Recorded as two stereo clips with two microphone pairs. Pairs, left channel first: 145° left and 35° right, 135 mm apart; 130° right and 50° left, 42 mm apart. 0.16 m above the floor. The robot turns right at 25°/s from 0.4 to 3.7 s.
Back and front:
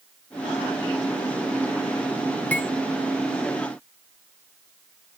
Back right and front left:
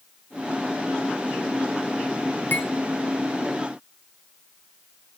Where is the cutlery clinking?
140° right, 1.1 m; by 2.7 s 135° right, 1.1 m.